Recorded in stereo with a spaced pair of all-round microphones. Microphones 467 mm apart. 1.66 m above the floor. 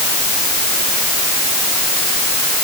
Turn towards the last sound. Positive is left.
No sound to turn to.